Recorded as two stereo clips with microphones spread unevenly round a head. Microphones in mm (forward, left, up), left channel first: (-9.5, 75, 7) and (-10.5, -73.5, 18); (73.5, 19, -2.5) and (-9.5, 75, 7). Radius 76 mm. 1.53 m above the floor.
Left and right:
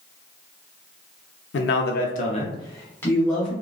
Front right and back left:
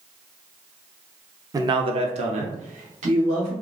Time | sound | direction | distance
1.5 | a man speaking | 90° left | 0.6 m